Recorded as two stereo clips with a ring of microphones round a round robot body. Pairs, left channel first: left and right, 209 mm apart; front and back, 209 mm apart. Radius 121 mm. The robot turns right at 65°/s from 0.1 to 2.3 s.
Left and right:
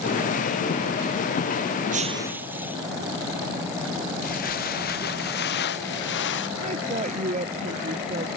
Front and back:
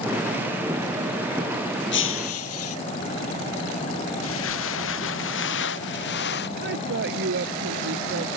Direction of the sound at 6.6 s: 145° right.